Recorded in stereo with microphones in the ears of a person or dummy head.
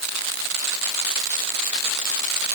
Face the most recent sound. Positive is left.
No sound to turn to.